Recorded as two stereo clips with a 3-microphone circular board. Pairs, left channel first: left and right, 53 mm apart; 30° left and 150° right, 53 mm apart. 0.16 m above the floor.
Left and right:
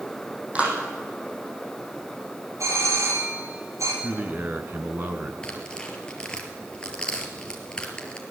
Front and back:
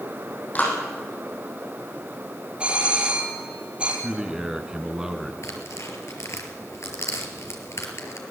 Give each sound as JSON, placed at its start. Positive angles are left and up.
{"t": 0.6, "sound": "a clap", "azimuth_deg": -25, "distance_m": 7.0}
{"t": 2.6, "sound": "a doorbell", "azimuth_deg": -80, "distance_m": 5.0}
{"t": 4.0, "sound": "a man speaking", "azimuth_deg": -80, "distance_m": 2.0}
{"t": 5.4, "sound": "tearing paper", "azimuth_deg": 20, "distance_m": 3.5}